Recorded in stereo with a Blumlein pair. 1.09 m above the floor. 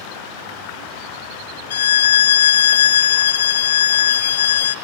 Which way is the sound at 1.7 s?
60° left.